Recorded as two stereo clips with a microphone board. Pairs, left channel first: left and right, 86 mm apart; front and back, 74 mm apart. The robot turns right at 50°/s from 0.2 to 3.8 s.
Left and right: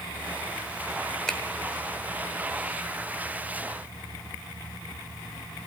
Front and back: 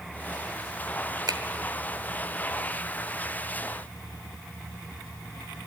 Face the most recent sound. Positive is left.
turn(degrees=-65)